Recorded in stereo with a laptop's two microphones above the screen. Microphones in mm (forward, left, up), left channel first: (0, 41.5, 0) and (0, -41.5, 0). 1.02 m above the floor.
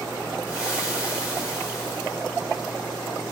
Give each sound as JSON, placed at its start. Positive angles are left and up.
{"t": 0.5, "sound": "frying", "side_deg": -10, "distance_m": 1.7}